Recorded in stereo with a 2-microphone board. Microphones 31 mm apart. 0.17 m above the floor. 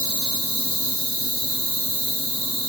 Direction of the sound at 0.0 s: 80° left.